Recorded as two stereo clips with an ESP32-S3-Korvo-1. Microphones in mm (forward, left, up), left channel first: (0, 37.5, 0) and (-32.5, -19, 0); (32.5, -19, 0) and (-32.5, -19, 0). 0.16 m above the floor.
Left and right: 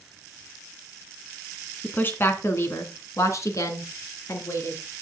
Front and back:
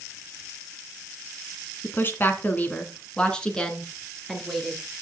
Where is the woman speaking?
20° left, 1.6 m; by 4.8 s 90° left, 3 m.